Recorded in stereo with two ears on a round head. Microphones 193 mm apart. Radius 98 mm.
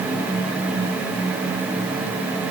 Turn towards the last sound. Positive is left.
No sound to turn to.